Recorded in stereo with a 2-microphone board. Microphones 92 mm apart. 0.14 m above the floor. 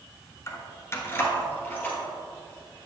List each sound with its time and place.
0.5 s keys jangling: 35° left (ahead or behind), 0.8 m; by 2.0 s 20° left (ahead or behind), 1.9 m